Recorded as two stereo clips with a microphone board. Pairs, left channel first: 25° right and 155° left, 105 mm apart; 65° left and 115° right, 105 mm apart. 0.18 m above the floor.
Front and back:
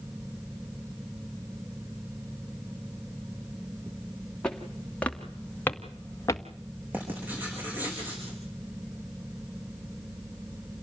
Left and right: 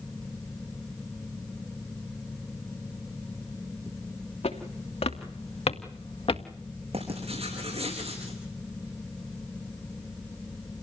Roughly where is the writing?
Behind right.